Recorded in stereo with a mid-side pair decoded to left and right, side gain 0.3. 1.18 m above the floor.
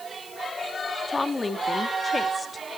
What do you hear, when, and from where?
1.1 s a woman speaking: 35° left, 2.0 m